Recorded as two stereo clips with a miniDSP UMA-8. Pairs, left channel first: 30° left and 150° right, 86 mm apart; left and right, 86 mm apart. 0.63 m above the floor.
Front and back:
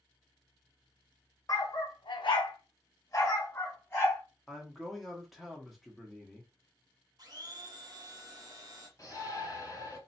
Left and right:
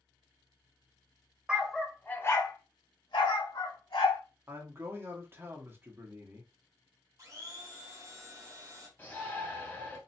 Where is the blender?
130° right, 0.8 m.